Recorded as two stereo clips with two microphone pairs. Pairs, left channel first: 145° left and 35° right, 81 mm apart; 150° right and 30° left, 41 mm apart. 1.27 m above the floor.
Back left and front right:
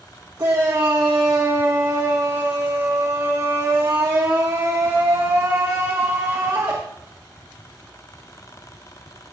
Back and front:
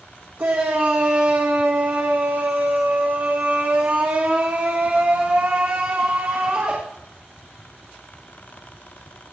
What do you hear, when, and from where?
0.4 s a shout: 10° left, 1.9 m